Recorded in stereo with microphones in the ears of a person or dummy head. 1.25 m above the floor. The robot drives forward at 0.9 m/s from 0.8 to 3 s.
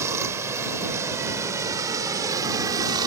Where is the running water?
10° right (ahead or behind); by 3.1 s 20° right (ahead or behind).